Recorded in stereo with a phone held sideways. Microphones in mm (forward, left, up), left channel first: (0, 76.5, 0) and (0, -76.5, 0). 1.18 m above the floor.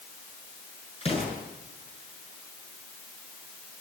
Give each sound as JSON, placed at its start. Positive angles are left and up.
{"t": 1.0, "sound": "an explosion", "side_deg": 40, "distance_m": 7.5}